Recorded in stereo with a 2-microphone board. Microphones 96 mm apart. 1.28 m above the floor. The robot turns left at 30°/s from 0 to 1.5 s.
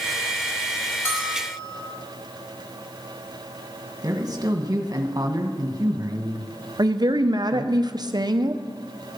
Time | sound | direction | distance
1.1 | a bell | 15° left (ahead or behind) | 4.5 m
4.0 | a man speaking | 40° right (ahead or behind) | 1.5 m
6.8 | a woman speaking | 45° right (ahead or behind) | 0.8 m